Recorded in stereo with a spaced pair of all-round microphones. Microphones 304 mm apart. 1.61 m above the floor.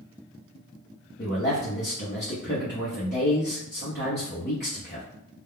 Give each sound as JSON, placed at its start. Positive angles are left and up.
{"t": 1.2, "sound": "a man speaking", "side_deg": 35, "distance_m": 0.8}